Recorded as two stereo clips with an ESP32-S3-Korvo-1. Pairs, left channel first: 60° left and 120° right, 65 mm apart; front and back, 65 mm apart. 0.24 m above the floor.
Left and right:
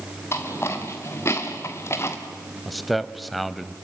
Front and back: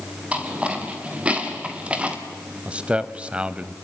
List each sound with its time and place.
0.3 s footsteps: 110° left, 4 m
2.6 s a man speaking: 150° left, 0.9 m